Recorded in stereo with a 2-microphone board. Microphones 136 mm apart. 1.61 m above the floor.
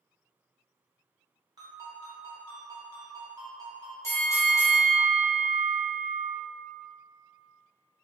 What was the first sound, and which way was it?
A ringtone, 30° right (ahead or behind).